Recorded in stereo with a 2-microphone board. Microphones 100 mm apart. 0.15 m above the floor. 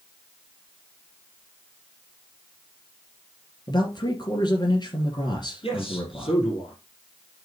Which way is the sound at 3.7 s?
45° left (ahead or behind).